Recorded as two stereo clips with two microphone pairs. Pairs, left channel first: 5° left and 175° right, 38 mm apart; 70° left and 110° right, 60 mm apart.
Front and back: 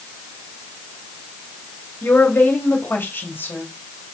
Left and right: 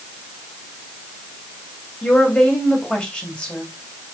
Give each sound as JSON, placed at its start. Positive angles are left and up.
{"t": 2.0, "sound": "a woman speaking", "azimuth_deg": 0, "distance_m": 3.0}